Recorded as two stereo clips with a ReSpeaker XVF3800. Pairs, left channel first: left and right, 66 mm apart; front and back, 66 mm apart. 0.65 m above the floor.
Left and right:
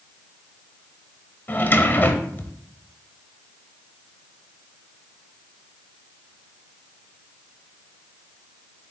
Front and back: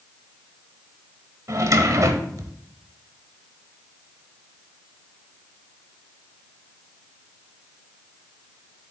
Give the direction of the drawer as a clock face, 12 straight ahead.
7 o'clock.